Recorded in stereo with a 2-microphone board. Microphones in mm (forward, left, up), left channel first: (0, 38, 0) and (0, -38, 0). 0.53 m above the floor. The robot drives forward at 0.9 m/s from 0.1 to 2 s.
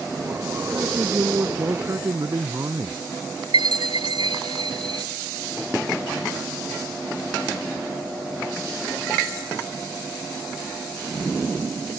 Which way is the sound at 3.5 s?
80° right.